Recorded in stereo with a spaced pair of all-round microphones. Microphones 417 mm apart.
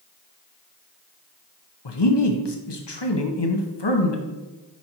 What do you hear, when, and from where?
1.9 s a man speaking: 75° left (ahead or behind), 0.9 m